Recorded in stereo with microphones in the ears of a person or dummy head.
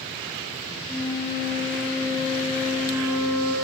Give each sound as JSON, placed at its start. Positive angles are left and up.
{"t": 0.9, "sound": "a flute", "side_deg": 5, "distance_m": 6.5}